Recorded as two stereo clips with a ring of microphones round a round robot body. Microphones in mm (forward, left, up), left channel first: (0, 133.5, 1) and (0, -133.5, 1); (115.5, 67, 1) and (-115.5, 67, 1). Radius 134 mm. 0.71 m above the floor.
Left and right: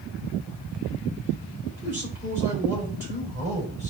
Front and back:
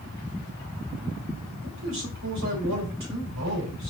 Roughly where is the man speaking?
Behind.